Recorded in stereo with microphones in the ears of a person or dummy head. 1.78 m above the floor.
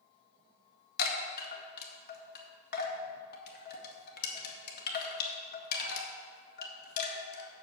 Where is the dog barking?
I don't hear a dog barking.